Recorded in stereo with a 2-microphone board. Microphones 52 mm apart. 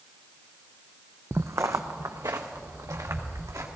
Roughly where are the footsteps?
Right.